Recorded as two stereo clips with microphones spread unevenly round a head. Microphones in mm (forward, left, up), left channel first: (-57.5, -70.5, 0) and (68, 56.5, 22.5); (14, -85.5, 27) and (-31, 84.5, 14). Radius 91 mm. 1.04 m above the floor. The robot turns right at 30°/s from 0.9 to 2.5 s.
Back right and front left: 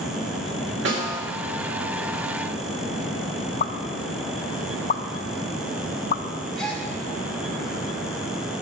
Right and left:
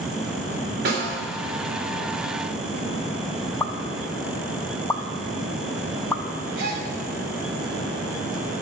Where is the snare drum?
70° left, 3 m; by 1.2 s 80° left, 3 m.